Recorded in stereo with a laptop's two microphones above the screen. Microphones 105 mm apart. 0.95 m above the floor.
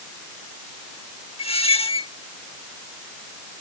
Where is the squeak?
75° left (ahead or behind).